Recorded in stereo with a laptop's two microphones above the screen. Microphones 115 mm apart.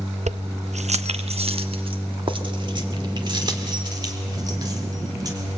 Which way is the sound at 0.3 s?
75° right (ahead or behind).